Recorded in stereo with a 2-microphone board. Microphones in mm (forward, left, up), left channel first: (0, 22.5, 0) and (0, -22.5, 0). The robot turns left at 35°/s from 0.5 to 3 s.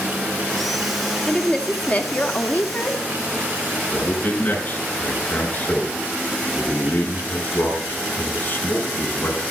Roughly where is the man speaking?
Left.